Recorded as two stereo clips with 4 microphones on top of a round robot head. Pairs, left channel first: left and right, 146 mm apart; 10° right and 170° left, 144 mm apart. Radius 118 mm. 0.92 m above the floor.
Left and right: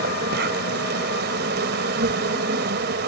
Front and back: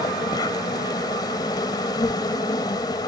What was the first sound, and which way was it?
An insect, 80° right.